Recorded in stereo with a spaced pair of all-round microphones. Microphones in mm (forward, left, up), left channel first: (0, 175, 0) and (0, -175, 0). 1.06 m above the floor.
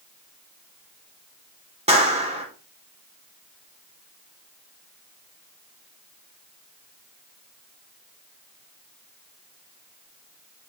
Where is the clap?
20° right (ahead or behind), 2.5 m.